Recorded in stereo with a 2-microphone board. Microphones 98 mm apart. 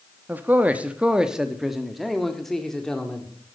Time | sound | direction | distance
0.3 | a man speaking | 20° right (ahead or behind) | 0.8 m